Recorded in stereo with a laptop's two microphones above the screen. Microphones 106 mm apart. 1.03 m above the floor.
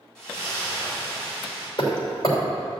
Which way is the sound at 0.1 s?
10° left (ahead or behind).